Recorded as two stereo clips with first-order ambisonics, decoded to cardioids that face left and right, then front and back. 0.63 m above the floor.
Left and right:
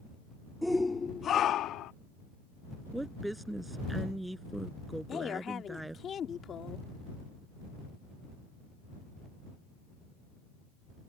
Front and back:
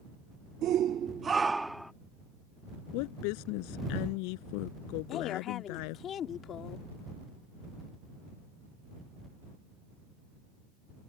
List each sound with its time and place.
0.6 s a shout: straight behind; by 1.9 s 85° left
2.9 s a woman speaking: 5° right
5.1 s a woman speaking: 40° left